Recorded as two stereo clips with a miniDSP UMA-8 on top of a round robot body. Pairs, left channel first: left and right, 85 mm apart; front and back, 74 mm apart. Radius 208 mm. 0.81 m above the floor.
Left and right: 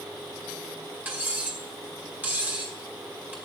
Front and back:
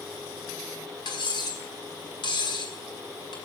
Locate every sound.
1.1 s cutlery clinking: 20° right, 6.5 m